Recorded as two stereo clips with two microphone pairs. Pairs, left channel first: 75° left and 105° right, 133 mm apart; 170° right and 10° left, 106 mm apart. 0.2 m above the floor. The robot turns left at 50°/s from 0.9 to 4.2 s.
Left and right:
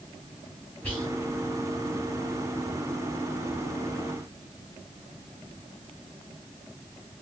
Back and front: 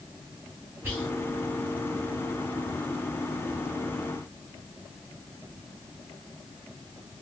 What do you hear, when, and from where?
0.8 s whispering: 15° left, 1.0 m; by 1.1 s 10° left, 1.0 m